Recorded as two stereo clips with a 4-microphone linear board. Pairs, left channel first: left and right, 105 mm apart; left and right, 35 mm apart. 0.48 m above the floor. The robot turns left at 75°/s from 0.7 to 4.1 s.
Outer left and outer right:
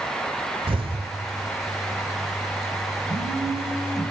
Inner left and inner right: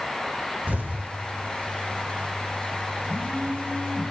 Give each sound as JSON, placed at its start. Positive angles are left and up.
{"t": 0.7, "sound": "an explosion", "azimuth_deg": -70, "distance_m": 1.2}
{"t": 3.1, "sound": "a phone buzzing", "azimuth_deg": 115, "distance_m": 6.5}